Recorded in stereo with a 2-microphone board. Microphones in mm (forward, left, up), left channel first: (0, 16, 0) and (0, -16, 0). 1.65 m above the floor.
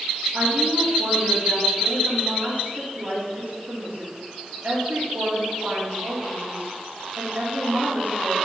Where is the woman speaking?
85° right, 3 m.